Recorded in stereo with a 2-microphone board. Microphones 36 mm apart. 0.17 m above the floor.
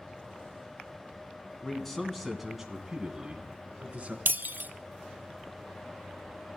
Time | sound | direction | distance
1.6 | a man speaking | 15° left (ahead or behind) | 1.8 m
4.3 | breaking glass | 65° right (ahead or behind) | 0.6 m